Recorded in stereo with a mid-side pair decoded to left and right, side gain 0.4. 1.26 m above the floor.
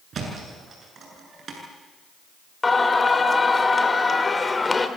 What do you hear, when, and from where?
0.1 s a thud: 55° right, 8 m
2.6 s singing: 25° left, 3 m